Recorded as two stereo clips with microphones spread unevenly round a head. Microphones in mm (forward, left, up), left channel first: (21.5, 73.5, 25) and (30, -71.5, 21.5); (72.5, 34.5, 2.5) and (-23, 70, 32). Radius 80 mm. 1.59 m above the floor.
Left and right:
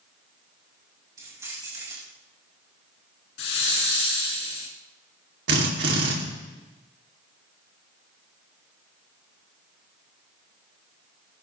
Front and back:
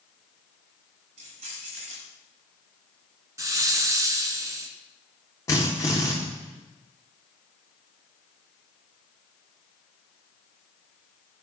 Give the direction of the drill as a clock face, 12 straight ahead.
3 o'clock.